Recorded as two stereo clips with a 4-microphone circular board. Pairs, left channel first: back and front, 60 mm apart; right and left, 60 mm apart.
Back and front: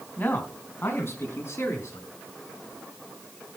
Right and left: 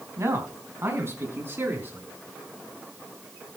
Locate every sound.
0.2 s a man speaking: 125° left, 3.5 m; by 2.1 s 140° left, 5 m